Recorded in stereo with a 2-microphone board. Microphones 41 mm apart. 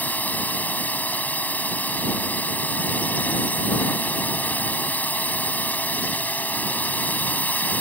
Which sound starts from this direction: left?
A drone, at 0.0 s.